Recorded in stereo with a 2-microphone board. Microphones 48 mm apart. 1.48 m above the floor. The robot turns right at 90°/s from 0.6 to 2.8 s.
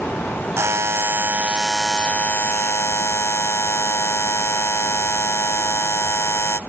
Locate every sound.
0.6 s a buzzer: 105° right, 0.7 m; by 6.6 s 90° left, 0.7 m